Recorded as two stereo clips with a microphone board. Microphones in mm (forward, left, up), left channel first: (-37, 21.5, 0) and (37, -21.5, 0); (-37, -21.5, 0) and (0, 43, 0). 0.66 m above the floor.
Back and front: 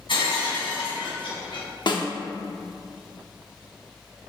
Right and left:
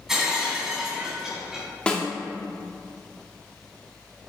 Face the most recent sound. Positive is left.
turn(degrees=165)